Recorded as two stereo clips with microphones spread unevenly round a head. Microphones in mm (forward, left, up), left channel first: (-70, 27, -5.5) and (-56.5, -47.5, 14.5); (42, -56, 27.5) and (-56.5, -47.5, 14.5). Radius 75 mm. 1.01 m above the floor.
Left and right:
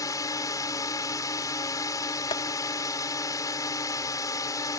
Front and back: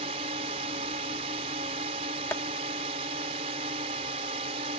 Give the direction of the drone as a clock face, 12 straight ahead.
7 o'clock.